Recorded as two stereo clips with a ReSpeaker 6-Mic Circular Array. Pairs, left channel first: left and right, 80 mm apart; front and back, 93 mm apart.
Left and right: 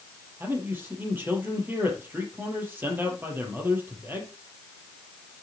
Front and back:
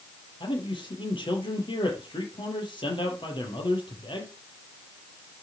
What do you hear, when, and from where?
0.4 s a man speaking: 25° right, 5 m